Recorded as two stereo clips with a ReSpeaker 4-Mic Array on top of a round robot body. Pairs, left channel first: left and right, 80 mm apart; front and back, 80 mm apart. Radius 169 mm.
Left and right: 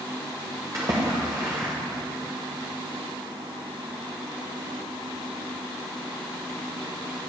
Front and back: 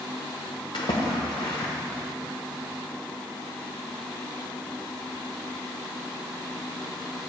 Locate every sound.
0.7 s a splash: 35° right, 0.9 m